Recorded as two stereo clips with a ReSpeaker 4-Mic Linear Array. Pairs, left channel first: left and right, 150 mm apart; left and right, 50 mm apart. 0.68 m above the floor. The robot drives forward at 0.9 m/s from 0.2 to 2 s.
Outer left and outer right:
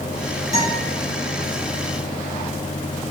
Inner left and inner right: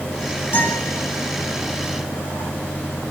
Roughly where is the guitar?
Left.